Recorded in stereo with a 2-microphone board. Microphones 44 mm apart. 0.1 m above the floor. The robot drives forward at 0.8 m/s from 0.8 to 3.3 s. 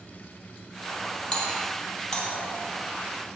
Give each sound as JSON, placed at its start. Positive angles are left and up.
{"t": 1.3, "sound": "a doorbell", "side_deg": 15, "distance_m": 4.0}